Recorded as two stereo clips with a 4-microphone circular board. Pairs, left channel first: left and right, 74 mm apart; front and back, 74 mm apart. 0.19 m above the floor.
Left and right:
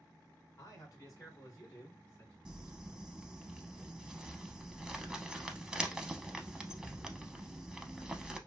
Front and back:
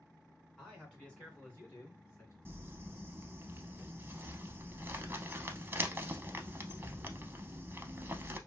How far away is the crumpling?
About 0.5 m.